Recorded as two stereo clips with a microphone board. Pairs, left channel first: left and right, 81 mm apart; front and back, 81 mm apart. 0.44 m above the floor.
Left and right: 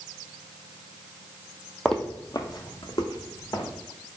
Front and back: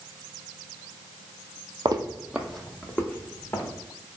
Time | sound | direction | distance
1.9 | footsteps | 175° left | 0.7 m